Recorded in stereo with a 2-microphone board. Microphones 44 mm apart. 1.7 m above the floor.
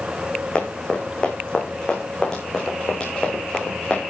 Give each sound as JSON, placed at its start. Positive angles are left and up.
{"t": 0.6, "sound": "running footsteps", "side_deg": 25, "distance_m": 6.0}